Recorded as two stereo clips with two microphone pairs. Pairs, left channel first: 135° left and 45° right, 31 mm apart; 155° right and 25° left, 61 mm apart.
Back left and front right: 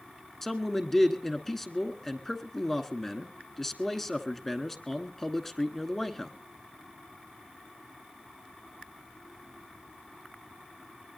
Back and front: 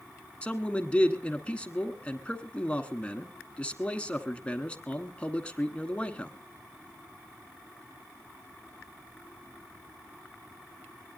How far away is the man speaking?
About 1.1 m.